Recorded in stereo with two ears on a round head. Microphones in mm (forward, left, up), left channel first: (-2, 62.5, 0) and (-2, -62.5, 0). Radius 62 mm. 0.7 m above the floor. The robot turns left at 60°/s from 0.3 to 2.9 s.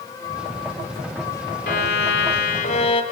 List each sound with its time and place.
1.7 s a violin: 110° left, 2 m; by 3.0 s 40° left, 2 m